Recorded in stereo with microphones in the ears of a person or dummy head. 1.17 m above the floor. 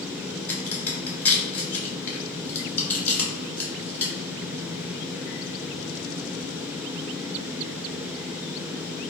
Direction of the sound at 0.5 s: 10° left (ahead or behind).